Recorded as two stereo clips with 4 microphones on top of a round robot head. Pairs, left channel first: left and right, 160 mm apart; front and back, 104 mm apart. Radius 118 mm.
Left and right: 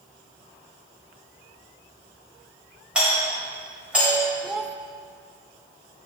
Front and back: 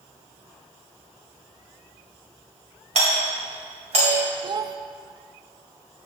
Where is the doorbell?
175° right, 3.5 m.